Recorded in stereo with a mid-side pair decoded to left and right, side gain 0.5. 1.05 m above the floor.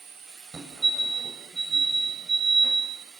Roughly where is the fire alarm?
Ahead right.